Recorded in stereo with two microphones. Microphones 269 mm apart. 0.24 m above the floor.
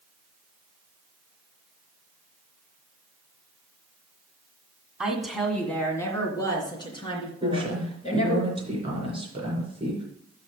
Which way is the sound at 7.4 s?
20° right (ahead or behind).